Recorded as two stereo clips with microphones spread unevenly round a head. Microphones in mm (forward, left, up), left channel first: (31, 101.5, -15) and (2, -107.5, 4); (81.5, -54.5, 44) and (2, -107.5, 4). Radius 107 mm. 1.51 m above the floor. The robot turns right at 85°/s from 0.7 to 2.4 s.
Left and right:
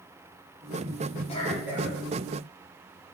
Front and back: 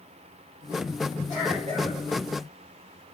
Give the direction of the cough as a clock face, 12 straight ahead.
7 o'clock.